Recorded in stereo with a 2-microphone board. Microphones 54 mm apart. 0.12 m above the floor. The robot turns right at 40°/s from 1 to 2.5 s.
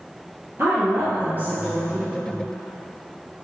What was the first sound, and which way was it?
A woman speaking, 55° right.